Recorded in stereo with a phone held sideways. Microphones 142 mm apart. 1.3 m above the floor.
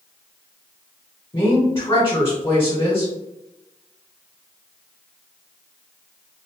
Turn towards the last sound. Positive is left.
turn(degrees=35)  # may be behind; listen again after turning